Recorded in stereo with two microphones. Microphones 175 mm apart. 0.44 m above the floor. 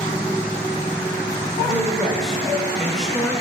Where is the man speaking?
Centre (ahead or behind), 1.2 m.